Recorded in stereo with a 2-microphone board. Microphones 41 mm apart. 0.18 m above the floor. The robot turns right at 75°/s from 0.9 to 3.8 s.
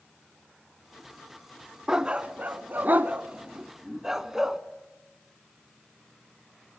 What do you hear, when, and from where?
1.9 s a dog barking: 15° right (ahead or behind), 0.8 m